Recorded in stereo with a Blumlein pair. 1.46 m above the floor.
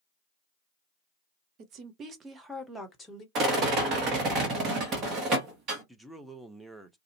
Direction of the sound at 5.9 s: Straight ahead.